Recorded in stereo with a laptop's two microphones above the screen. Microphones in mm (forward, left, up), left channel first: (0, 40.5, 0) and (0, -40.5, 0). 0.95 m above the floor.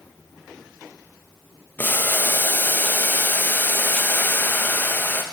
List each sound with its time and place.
1.8 s boiling: 25° left (ahead or behind), 0.7 m